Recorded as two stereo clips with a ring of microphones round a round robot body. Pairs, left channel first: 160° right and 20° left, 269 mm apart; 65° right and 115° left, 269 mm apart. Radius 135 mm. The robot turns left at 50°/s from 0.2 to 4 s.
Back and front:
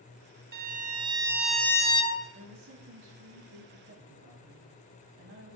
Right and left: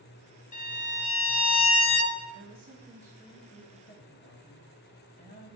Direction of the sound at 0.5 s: 15° right.